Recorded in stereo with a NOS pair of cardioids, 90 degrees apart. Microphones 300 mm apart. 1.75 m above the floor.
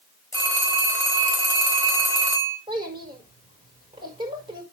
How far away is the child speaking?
About 5 m.